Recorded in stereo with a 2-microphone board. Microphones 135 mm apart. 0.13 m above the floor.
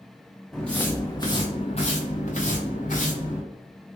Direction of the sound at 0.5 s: Centre (ahead or behind).